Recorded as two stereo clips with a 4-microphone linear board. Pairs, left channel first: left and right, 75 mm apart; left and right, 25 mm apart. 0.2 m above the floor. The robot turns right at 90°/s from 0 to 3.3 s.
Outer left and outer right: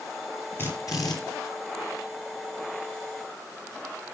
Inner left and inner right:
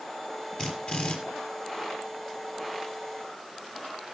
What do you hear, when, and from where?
0.6 s a drill: 35° left, 3.5 m; by 1.2 s 85° left, 3.5 m